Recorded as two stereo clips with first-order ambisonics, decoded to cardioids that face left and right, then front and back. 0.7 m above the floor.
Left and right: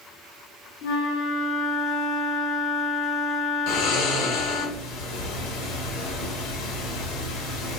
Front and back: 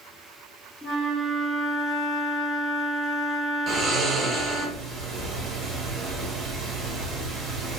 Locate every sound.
0.8 s a flute: 95° left, 0.8 m
3.7 s snoring: 110° left, 0.9 m